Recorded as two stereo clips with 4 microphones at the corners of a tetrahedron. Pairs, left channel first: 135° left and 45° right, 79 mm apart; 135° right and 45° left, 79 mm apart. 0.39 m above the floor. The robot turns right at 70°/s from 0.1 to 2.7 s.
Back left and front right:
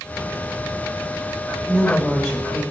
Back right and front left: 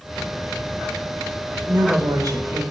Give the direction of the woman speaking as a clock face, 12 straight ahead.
12 o'clock.